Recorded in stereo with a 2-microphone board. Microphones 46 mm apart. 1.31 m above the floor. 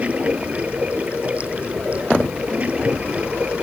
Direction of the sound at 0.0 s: 30° right (ahead or behind).